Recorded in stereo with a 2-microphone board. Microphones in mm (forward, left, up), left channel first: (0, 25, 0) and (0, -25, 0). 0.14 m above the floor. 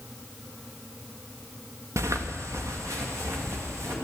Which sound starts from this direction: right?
Footsteps, at 2.0 s.